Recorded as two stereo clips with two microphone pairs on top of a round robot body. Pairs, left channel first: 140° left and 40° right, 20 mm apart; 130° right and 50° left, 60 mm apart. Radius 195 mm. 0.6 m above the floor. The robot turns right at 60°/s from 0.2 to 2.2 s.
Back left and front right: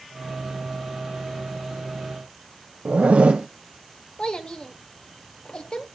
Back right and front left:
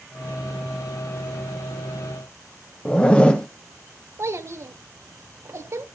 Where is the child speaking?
90° left, 2 m.